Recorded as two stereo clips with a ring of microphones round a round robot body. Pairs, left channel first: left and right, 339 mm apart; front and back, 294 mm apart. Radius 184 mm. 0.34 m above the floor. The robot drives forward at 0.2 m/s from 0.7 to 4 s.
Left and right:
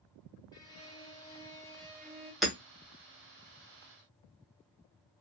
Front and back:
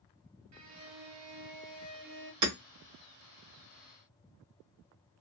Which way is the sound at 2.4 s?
Straight behind.